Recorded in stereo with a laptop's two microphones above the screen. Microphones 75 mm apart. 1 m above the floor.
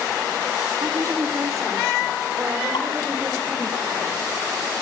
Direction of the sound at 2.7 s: 70° left (ahead or behind).